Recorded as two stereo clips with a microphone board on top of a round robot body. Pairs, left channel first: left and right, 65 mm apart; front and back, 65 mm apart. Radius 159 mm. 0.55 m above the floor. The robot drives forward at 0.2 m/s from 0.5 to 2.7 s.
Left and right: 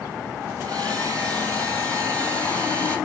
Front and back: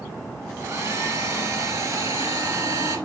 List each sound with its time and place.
0.6 s a hair dryer: 140° right, 2 m; by 3.0 s 145° right, 2.5 m